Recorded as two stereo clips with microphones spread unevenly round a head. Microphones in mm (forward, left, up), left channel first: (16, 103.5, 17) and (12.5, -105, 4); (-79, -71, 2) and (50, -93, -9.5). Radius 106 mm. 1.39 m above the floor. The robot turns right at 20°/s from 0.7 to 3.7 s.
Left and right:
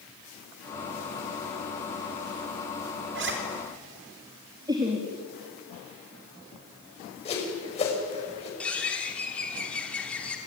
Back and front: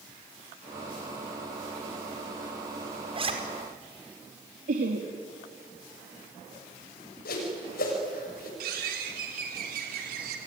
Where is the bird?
5° left, 3 m.